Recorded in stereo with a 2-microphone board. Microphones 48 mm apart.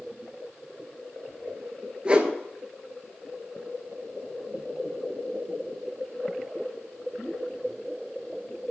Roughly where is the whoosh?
Right.